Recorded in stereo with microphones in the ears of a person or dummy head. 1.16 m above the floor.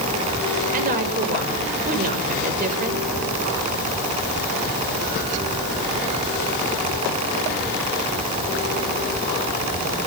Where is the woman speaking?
45° right (ahead or behind), 5.5 m.